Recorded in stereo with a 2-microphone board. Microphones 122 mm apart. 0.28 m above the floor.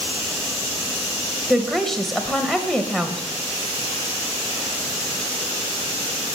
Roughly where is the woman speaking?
Centre.